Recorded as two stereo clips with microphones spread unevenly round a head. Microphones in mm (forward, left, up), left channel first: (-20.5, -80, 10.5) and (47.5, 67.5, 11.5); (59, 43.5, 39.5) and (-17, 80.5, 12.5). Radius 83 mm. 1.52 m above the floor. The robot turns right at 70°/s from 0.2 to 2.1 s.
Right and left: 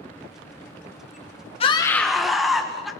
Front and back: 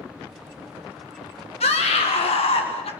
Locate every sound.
1.6 s a scream: 60° right, 1.8 m; by 2.9 s 25° right, 1.8 m